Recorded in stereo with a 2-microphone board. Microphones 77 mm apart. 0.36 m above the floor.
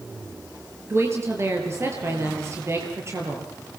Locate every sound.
0.9 s a woman speaking: 35° right (ahead or behind), 7.5 m